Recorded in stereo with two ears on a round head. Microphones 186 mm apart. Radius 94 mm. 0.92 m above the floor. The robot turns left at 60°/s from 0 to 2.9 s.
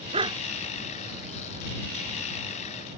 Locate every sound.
0.1 s a dog barking: 30° right (ahead or behind); by 0.4 s 15° right (ahead or behind)